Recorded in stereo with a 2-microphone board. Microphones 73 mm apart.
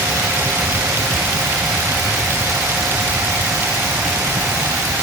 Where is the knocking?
I don't hear knocking.